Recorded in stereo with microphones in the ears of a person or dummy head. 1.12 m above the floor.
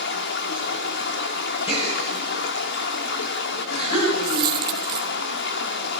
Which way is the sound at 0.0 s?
60° left (ahead or behind).